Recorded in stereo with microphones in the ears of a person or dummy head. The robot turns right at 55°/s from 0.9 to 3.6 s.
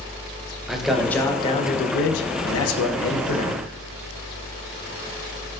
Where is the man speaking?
Straight ahead, 0.9 m; by 3.6 s 145° left, 0.9 m.